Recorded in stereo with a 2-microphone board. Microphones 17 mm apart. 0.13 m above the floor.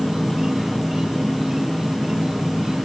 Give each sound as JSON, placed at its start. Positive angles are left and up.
{"t": 0.0, "sound": "an insect", "side_deg": -45, "distance_m": 1.6}